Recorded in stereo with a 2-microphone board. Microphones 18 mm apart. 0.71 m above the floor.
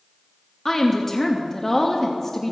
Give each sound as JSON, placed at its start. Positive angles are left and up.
{"t": 0.7, "sound": "a woman speaking", "side_deg": 20, "distance_m": 0.8}